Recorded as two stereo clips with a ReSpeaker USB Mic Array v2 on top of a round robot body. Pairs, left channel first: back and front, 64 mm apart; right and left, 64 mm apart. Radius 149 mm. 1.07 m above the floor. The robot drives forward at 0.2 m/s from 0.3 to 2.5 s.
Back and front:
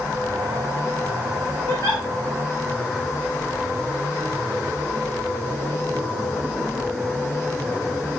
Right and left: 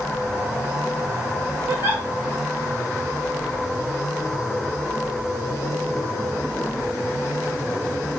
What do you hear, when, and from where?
1.7 s a giggle: 150° left, 1.3 m; by 2.0 s 155° left, 1.3 m